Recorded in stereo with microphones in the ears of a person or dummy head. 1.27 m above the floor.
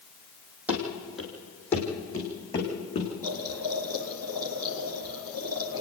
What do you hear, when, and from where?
0.7 s running footsteps: 10° right (ahead or behind), 3.5 m; by 3.1 s 25° left (ahead or behind), 5.5 m
3.2 s boiling: 15° right (ahead or behind), 2 m